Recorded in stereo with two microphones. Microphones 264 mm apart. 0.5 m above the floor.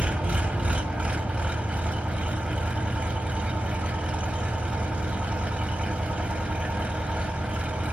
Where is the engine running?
5° right (ahead or behind), 1.4 m.